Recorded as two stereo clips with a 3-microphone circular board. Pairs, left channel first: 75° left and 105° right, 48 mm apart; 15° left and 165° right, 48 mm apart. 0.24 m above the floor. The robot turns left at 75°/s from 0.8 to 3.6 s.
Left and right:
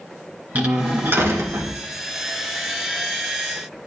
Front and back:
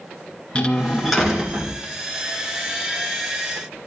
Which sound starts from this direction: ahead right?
A door slam, at 0.6 s.